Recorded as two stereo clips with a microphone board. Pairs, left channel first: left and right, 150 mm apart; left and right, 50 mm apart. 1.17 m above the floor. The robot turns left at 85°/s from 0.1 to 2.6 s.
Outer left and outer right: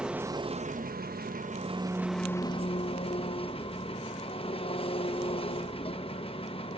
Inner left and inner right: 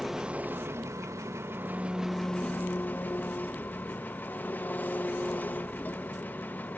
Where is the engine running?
5° right, 1.0 m; by 6.8 s 140° left, 1.0 m.